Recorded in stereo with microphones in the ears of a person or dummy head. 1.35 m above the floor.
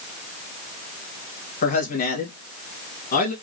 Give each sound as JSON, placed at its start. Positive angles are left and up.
{"t": 1.6, "sound": "a man speaking", "side_deg": 55, "distance_m": 2.0}